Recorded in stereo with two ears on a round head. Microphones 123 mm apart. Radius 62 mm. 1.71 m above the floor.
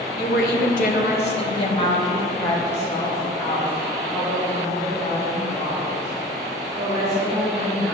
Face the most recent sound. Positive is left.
turn(degrees=0)  # may be behind; listen again after turning